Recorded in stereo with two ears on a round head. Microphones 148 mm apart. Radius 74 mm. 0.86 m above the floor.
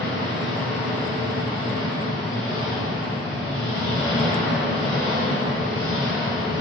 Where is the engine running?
55° left (ahead or behind), 1.5 m.